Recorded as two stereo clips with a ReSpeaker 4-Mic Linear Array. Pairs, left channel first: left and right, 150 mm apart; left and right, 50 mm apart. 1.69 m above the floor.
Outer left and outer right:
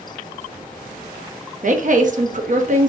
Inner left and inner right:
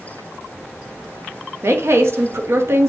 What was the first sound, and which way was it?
A woman speaking, 60° right (ahead or behind).